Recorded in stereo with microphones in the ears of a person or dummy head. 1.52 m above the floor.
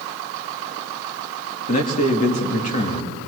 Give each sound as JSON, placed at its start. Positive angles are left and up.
{"t": 1.7, "sound": "a man speaking", "side_deg": 40, "distance_m": 2.5}